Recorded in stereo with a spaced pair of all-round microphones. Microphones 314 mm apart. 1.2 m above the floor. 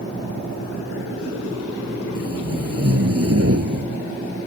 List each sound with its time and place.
2.1 s tape being pulled: 45° right (ahead or behind)